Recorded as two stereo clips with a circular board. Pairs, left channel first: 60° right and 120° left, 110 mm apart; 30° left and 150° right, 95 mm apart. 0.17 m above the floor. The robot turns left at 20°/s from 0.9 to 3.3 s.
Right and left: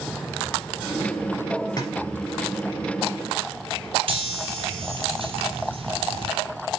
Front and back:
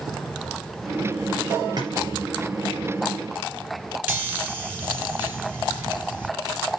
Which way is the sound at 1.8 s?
115° right.